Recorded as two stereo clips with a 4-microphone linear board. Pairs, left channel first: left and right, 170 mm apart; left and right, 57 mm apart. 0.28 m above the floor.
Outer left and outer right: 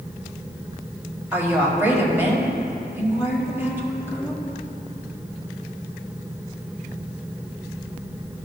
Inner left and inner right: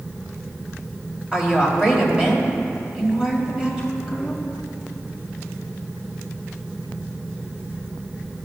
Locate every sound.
1.3 s a woman speaking: 15° right (ahead or behind), 1.5 m